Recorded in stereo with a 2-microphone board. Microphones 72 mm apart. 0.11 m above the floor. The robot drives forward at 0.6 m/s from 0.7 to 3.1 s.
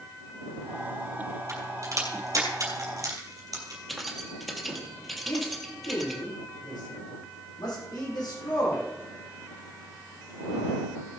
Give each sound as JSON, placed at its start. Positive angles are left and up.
{"t": 1.5, "sound": "a crack", "side_deg": -45, "distance_m": 4.0}
{"t": 3.9, "sound": "keys jangling", "side_deg": 0, "distance_m": 2.0}
{"t": 5.3, "sound": "a man speaking", "side_deg": 70, "distance_m": 6.0}